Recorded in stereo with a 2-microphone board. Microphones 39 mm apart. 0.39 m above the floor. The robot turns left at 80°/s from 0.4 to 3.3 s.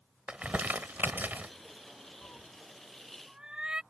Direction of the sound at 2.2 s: 65° left (ahead or behind).